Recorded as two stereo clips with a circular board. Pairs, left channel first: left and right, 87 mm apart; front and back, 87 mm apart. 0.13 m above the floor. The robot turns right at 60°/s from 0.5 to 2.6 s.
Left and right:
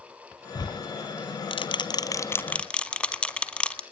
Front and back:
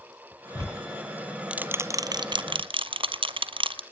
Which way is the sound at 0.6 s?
45° left.